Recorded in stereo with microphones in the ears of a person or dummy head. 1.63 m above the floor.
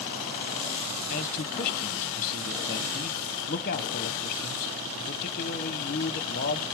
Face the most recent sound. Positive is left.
turn(degrees=45)  # may be behind; listen again after turning